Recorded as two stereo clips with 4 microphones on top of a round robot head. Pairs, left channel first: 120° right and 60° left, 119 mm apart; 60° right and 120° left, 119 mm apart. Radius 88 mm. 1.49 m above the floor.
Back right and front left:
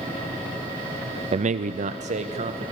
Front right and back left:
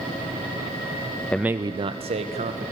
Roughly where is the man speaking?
Ahead.